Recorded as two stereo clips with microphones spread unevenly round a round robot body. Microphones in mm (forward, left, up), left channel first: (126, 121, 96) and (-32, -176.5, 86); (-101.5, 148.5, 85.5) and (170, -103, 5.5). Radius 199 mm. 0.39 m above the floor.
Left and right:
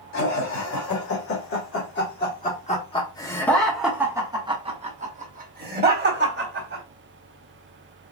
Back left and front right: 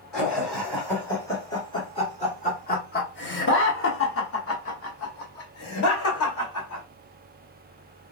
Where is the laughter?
35° left, 1.9 m; by 6.8 s 165° right, 2 m.